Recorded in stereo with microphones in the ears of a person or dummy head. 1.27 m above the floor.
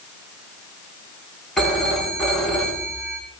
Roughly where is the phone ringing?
Centre.